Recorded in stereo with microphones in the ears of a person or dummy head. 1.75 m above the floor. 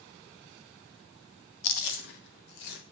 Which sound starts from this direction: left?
Chewing, at 1.6 s.